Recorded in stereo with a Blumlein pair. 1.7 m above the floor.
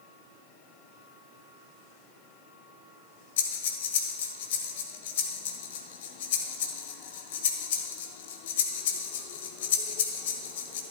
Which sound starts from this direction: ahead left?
Breathing, at 3.4 s.